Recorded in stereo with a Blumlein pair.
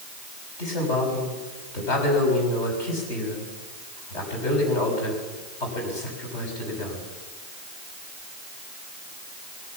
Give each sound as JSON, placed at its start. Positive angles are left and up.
{"t": 0.6, "sound": "a man speaking", "azimuth_deg": 45, "distance_m": 6.0}